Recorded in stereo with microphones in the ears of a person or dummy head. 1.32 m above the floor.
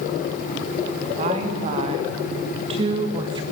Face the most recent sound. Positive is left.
turn(degrees=-30)  # may be behind; listen again after turning